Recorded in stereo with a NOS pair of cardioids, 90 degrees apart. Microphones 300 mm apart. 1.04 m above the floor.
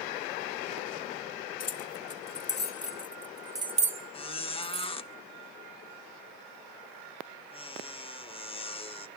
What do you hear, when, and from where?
1.6 s keys jangling: 55° left, 1.5 m; by 4.9 s 55° right, 1.3 m
4.1 s a squeak: 20° left, 0.5 m